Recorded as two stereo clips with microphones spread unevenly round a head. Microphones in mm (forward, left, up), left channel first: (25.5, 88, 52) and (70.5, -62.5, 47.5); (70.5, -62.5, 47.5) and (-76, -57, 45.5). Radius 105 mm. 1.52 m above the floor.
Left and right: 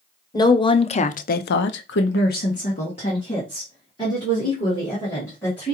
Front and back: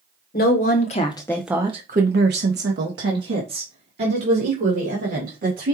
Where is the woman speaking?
40° left, 0.9 m; by 5.7 s 175° right, 2.5 m.